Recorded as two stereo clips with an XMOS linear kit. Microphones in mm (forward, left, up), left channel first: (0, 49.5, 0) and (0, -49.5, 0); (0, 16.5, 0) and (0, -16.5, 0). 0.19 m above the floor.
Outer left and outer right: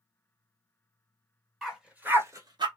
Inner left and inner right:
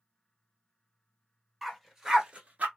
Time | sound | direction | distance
1.6 | a dog barking | centre (ahead or behind) | 1.3 m